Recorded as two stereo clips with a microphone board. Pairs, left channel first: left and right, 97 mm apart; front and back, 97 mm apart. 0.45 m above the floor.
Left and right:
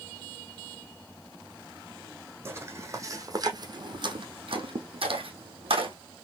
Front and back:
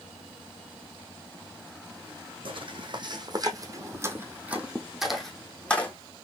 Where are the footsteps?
155° right, 1.6 m; by 5.9 s 75° right, 1.5 m.